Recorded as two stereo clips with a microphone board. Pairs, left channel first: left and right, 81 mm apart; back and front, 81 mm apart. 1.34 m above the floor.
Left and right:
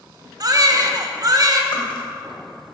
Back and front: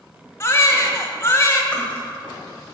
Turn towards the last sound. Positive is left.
turn(degrees=105)